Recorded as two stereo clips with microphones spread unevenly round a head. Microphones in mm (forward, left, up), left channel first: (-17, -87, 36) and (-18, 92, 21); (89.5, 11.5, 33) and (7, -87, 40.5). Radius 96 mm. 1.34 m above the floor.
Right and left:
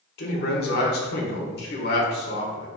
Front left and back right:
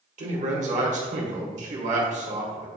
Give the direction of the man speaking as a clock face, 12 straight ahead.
4 o'clock.